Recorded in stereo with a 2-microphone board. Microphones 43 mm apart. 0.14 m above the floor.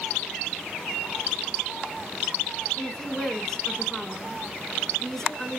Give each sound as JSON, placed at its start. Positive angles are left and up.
{"t": 2.8, "sound": "a woman speaking", "side_deg": 10, "distance_m": 1.1}